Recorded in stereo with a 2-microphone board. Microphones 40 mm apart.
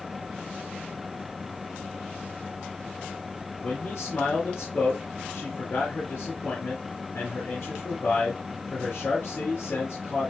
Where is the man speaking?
60° left (ahead or behind), 4.5 m.